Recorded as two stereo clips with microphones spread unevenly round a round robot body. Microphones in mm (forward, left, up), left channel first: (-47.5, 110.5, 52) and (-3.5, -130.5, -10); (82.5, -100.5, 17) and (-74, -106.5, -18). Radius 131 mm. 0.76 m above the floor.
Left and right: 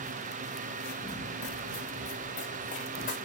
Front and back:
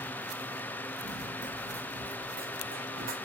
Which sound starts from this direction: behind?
Running footsteps, at 1.0 s.